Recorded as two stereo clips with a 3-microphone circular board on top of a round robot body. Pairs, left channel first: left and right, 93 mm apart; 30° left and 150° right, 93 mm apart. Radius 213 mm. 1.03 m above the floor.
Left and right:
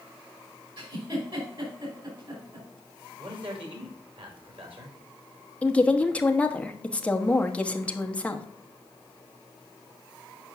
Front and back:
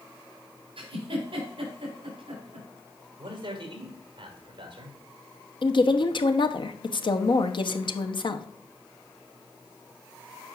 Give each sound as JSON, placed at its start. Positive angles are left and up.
{"t": 0.8, "sound": "a giggle", "azimuth_deg": -125, "distance_m": 4.0}
{"t": 3.2, "sound": "a man speaking", "azimuth_deg": -115, "distance_m": 3.0}
{"t": 5.6, "sound": "a woman speaking", "azimuth_deg": 15, "distance_m": 1.1}